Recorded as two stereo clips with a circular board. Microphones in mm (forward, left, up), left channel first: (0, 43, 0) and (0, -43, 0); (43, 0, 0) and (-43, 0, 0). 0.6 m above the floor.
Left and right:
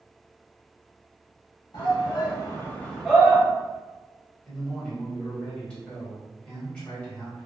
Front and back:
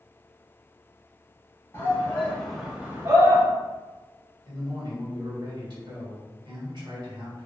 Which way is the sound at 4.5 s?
165° left.